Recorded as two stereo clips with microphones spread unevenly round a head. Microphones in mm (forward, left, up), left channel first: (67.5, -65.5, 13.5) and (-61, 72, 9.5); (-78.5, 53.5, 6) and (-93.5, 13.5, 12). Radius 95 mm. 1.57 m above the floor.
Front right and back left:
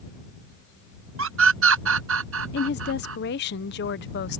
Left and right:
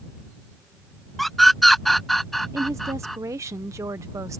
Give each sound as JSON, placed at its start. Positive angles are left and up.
{"t": 1.2, "sound": "a scream", "azimuth_deg": 155}
{"t": 2.5, "sound": "a woman speaking", "azimuth_deg": -85}